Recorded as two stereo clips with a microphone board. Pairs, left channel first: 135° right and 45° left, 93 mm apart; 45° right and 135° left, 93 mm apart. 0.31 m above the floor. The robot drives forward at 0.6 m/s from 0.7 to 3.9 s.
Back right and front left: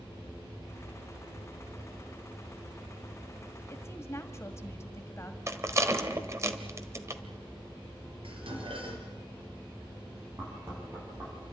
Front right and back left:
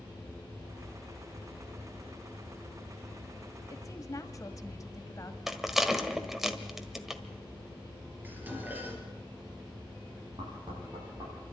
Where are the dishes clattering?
65° left, 3.5 m.